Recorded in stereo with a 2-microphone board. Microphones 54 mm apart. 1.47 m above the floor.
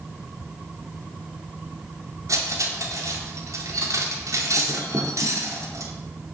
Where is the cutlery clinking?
70° right (ahead or behind), 2.5 m.